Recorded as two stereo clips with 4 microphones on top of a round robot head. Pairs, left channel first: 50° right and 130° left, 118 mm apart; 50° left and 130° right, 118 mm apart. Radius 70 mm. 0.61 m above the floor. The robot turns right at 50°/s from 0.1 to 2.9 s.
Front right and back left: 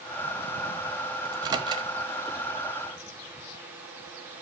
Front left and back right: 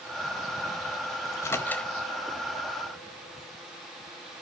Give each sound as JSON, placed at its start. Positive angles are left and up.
{"t": 1.2, "sound": "a microwave", "azimuth_deg": 95, "distance_m": 1.1}